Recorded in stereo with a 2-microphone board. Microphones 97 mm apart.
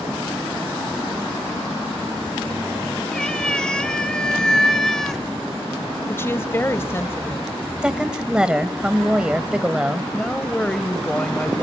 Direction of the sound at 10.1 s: 10° left (ahead or behind).